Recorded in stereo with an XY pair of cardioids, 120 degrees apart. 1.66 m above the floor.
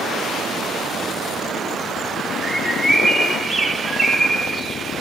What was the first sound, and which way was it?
A bird, 5° right.